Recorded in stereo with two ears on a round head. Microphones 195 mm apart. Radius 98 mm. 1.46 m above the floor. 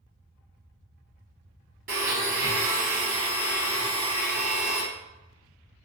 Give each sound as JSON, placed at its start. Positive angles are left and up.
{"t": 1.9, "sound": "a blender", "side_deg": -35, "distance_m": 1.3}